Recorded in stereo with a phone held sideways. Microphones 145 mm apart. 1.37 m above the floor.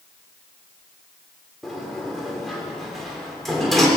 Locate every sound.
1.6 s a sliding door: centre (ahead or behind), 3.5 m